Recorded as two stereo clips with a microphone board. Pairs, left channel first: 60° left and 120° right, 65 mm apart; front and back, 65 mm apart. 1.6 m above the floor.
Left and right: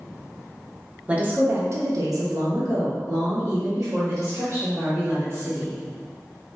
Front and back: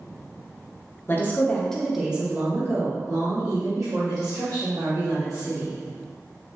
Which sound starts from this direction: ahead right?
A woman speaking, at 1.1 s.